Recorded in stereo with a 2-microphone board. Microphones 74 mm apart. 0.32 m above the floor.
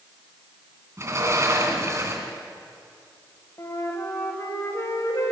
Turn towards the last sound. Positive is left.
turn(degrees=45)  # may be behind; listen again after turning